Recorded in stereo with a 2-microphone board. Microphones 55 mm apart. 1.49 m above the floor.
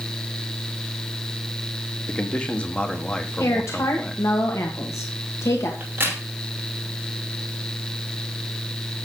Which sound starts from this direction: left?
A woman speaking, at 3.4 s.